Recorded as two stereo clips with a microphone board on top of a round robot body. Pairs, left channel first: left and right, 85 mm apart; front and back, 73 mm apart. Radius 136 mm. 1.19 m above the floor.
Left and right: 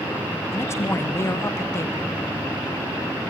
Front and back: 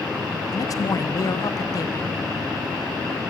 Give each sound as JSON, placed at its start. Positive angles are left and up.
{"t": 0.5, "sound": "a man speaking", "azimuth_deg": 35, "distance_m": 1.3}